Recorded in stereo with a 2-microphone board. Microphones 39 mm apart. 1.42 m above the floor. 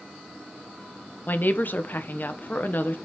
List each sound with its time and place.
1.3 s a woman speaking: 50° left (ahead or behind), 1.1 m